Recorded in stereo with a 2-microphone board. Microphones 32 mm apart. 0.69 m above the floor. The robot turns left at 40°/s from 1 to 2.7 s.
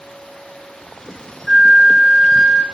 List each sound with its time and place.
1.5 s a flute: 25° left (ahead or behind), 0.7 m